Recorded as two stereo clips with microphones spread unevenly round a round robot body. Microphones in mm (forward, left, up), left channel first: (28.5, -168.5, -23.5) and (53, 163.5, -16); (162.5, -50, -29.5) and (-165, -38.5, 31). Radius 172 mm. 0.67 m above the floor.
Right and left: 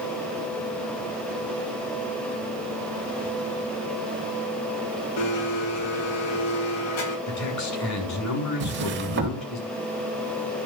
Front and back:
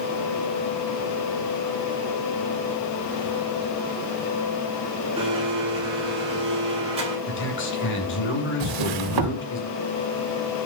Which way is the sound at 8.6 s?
145° left.